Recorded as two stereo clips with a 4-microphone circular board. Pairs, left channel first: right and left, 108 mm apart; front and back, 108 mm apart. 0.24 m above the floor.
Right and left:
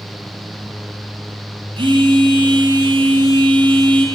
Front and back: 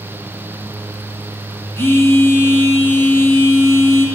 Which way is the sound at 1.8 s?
65° left.